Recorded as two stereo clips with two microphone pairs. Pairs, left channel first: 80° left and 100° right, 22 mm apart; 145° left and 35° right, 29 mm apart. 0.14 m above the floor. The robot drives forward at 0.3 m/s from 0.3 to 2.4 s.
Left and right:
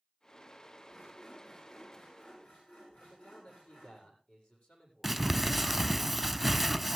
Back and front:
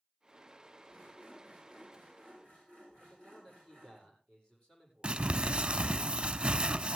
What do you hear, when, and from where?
0.9 s sawing: 85° left, 9.5 m; by 4.0 s 90° left, 9.5 m
3.0 s a man speaking: 85° left, 7.5 m
5.0 s crumpling: 10° right, 0.6 m